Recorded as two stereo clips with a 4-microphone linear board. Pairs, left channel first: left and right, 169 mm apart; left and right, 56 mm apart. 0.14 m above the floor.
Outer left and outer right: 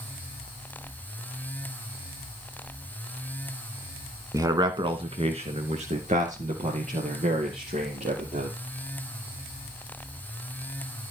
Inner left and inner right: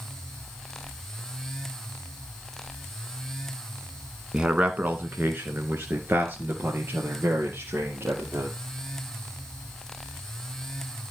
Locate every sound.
4.3 s a man speaking: 20° right (ahead or behind), 1.3 m; by 8.5 s 50° right (ahead or behind), 4 m